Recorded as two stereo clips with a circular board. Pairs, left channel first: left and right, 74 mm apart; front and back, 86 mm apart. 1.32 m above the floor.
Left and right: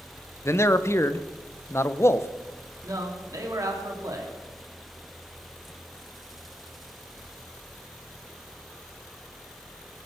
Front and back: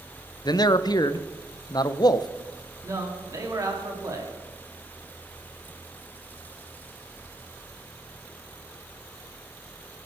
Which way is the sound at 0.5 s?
35° left.